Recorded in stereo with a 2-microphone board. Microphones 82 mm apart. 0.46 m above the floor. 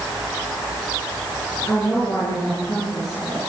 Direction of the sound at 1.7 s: 45° left (ahead or behind).